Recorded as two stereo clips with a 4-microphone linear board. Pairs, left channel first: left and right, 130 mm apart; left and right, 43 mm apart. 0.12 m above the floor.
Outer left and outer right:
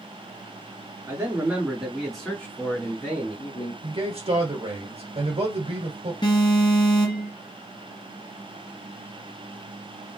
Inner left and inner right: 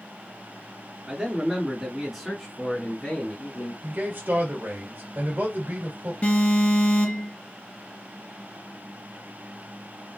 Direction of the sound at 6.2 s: 35° left (ahead or behind).